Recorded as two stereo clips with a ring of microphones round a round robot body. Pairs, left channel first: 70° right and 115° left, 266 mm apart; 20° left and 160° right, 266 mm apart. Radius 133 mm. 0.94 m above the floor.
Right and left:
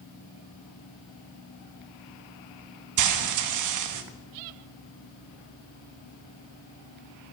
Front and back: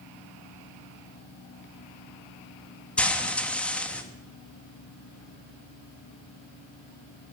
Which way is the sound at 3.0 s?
110° left.